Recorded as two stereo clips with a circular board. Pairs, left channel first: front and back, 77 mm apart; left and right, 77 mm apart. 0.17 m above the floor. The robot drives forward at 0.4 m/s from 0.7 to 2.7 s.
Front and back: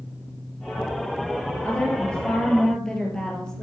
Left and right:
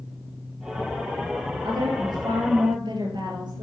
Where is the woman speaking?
75° right, 3.5 m; by 3.6 s 80° right, 3.5 m.